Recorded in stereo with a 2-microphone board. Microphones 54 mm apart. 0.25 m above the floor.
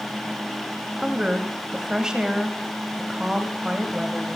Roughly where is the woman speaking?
Centre.